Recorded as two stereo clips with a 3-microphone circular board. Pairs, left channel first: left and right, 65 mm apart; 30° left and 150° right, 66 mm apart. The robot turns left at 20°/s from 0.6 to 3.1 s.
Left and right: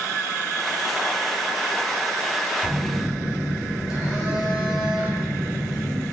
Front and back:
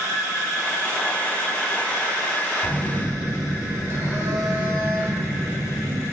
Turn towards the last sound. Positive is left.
turn(degrees=-170)